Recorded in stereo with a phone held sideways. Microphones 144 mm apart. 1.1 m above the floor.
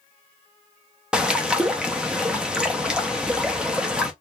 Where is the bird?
5° right (ahead or behind), 0.6 m.